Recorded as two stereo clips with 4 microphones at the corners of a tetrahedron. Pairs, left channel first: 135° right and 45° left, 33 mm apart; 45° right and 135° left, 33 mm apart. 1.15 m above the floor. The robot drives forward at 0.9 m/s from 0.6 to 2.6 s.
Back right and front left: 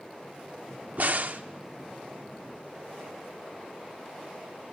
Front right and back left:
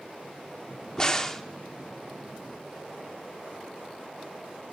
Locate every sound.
1.0 s a crack: 15° left, 1.1 m; by 1.4 s 25° left, 0.7 m